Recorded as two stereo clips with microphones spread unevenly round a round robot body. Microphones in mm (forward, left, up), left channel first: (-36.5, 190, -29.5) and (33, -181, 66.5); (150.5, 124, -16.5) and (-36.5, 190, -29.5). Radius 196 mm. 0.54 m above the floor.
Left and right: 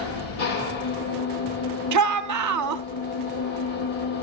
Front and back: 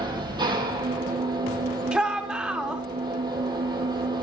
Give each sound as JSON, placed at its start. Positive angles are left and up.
{"t": 0.0, "sound": "an engine running", "azimuth_deg": 90, "distance_m": 6.0}
{"t": 1.9, "sound": "a shout", "azimuth_deg": -120, "distance_m": 0.9}